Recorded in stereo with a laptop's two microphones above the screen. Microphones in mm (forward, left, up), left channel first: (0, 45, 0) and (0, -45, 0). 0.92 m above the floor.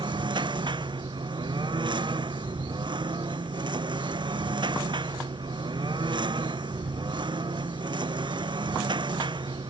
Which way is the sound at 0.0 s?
60° right (ahead or behind).